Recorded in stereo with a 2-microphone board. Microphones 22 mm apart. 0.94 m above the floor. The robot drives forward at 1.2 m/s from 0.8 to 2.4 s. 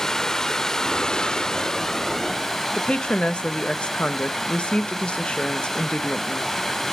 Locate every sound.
0.0 s running water: 20° left (ahead or behind), 0.7 m; by 6.9 s 10° left (ahead or behind), 1.6 m
2.7 s a woman speaking: 50° left (ahead or behind), 1.0 m